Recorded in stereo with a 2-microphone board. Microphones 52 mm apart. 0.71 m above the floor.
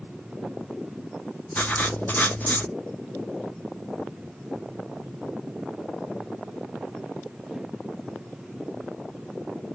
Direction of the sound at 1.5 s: 30° left (ahead or behind).